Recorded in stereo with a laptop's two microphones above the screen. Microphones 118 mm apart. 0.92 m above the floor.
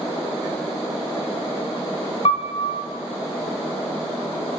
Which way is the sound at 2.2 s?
55° left (ahead or behind).